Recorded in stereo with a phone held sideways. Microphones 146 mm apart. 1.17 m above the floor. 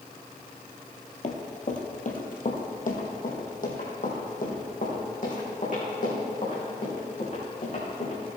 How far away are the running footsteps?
About 1.9 m.